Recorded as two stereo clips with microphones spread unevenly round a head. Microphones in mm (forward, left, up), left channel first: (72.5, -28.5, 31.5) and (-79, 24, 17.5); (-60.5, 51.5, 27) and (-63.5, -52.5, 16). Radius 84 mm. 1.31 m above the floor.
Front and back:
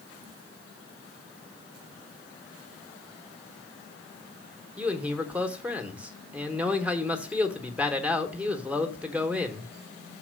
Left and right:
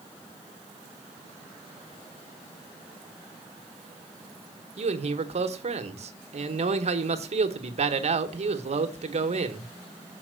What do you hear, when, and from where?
4.8 s a man speaking: 115° right, 1.2 m